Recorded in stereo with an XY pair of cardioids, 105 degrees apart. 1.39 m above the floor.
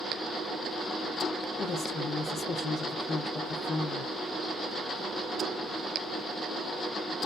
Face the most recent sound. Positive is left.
turn(degrees=50)